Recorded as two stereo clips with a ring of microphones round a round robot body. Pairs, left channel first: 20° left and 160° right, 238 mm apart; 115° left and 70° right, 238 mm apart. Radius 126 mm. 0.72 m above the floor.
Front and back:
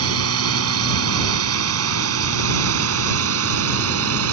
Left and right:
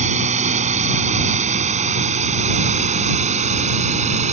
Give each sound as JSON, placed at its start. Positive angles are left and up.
{"t": 0.0, "sound": "a drone", "azimuth_deg": -130}